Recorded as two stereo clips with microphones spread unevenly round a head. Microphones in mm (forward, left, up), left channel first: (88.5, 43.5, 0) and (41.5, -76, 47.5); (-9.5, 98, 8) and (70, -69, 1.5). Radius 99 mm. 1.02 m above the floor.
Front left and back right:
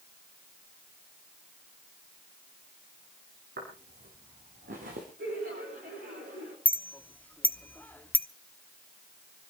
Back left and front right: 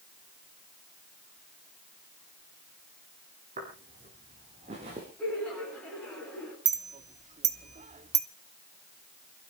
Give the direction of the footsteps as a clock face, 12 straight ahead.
4 o'clock.